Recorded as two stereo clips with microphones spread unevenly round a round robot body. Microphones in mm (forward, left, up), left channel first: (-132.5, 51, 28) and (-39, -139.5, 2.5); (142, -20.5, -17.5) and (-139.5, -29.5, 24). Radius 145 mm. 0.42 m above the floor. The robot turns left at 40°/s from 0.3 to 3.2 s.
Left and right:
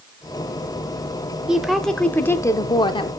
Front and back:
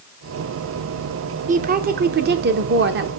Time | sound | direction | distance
1.5 | a woman speaking | 130° right | 0.8 m